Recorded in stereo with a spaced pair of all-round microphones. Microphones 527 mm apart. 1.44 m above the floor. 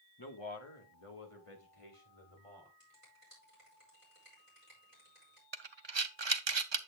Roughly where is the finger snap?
Left.